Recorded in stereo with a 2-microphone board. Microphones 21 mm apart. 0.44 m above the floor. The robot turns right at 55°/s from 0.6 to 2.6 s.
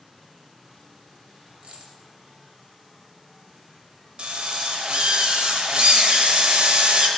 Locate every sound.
1.6 s a dropped coin: 55° right (ahead or behind), 0.8 m; by 2.0 s 40° right (ahead or behind), 0.8 m
4.2 s a drill: 45° right (ahead or behind), 0.6 m